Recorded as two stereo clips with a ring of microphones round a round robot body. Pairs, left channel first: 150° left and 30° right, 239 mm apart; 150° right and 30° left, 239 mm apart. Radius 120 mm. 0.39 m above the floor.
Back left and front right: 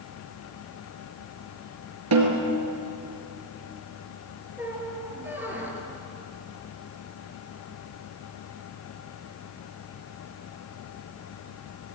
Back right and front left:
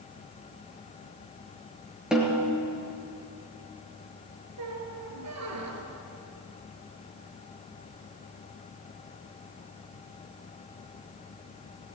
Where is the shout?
I don't hear a shout.